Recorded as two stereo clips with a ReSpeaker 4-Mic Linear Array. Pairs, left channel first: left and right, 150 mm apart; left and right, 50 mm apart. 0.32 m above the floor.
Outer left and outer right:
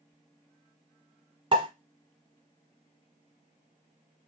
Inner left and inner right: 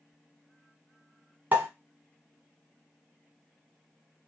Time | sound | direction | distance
1.5 | a pop | 35° right (ahead or behind) | 1.1 m